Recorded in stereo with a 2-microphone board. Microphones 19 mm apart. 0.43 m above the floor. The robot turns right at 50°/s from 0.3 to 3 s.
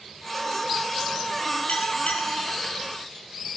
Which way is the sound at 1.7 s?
65° left.